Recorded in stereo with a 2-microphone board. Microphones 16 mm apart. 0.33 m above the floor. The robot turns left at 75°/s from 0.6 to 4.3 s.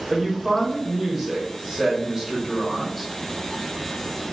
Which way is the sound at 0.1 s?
Centre (ahead or behind).